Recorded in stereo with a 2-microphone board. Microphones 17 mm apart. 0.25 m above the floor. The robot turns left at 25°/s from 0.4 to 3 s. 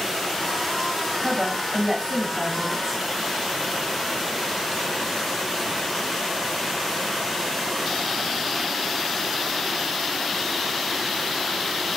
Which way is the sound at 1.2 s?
Centre (ahead or behind).